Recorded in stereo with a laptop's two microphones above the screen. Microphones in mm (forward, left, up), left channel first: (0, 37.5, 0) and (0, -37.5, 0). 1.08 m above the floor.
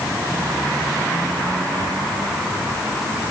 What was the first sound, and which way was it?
Only background noise.